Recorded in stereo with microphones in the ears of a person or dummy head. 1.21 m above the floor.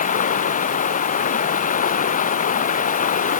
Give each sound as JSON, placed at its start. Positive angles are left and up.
{"t": 0.0, "sound": "running water", "side_deg": 45}